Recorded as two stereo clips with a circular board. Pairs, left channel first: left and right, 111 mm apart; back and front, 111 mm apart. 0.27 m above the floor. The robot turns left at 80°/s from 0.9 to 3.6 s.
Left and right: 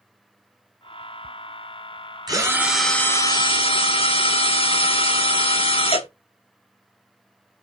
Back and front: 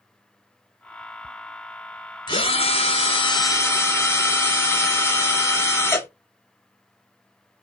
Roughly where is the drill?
Behind right.